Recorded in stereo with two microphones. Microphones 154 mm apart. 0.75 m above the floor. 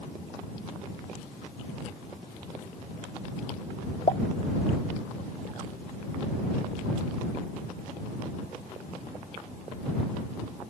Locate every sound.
4.1 s a pop: 50° left (ahead or behind)